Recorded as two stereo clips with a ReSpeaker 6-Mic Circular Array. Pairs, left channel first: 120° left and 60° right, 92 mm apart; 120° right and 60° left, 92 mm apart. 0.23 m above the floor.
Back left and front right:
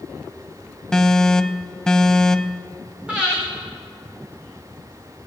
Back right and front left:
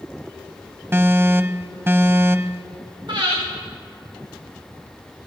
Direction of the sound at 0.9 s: 45° left.